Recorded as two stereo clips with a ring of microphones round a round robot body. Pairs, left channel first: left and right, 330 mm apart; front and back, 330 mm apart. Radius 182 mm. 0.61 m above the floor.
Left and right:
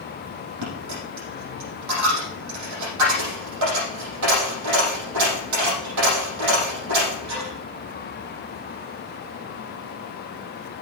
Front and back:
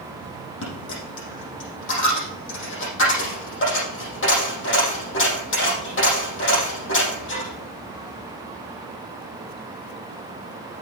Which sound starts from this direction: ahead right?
A dropped coin, at 0.6 s.